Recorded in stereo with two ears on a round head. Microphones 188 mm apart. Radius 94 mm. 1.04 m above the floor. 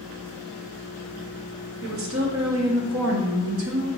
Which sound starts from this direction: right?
A woman speaking, at 1.8 s.